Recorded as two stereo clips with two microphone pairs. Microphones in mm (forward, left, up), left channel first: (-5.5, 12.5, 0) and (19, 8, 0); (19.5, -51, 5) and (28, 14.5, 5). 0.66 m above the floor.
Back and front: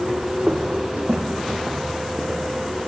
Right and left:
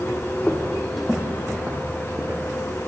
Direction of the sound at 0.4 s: 35° right.